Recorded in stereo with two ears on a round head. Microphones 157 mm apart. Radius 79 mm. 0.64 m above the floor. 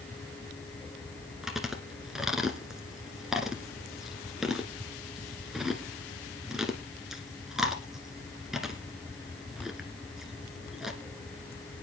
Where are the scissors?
I don't hear scissors.